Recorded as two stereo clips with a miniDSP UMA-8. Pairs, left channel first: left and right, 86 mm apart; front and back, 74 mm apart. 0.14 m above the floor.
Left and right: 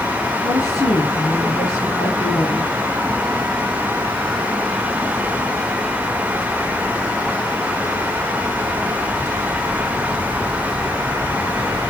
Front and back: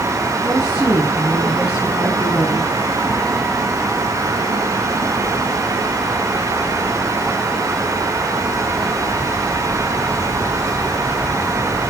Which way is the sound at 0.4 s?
105° left.